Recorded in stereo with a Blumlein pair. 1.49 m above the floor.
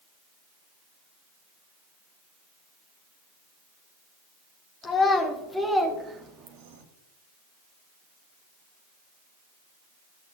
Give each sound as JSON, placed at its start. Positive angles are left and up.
{"t": 4.8, "sound": "a child speaking", "azimuth_deg": 20, "distance_m": 2.5}